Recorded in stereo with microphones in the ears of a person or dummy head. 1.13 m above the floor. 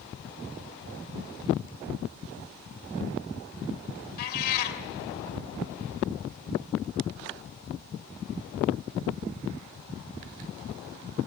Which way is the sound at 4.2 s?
55° left (ahead or behind).